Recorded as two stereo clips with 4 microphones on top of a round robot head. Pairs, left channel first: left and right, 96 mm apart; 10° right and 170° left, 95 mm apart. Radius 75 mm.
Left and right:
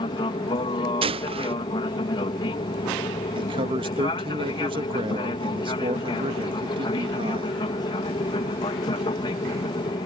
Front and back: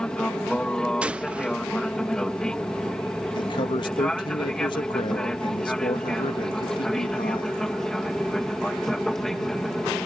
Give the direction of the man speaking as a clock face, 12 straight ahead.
2 o'clock.